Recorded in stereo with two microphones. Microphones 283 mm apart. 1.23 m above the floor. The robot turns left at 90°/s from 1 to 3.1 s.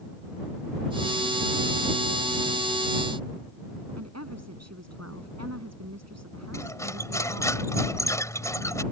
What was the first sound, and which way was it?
A woman speaking, 60° right (ahead or behind).